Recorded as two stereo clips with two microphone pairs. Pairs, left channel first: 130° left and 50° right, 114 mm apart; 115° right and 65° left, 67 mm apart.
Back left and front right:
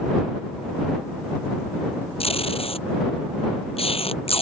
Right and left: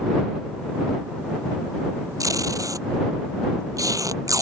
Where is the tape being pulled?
100° left.